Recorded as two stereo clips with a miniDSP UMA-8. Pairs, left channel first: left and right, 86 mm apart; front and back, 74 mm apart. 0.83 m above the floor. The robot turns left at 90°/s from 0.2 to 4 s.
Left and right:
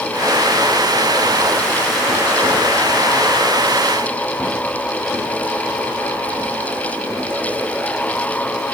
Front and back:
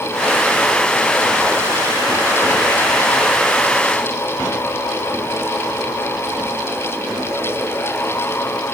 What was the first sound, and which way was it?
Only background noise.